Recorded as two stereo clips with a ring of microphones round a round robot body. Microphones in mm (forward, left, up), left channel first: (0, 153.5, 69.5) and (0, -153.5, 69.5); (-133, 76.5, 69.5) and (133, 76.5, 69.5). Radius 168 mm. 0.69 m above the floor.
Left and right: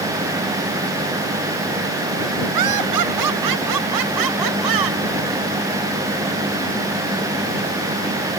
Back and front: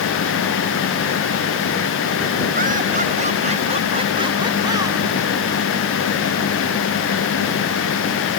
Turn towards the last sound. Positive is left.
turn(degrees=-80)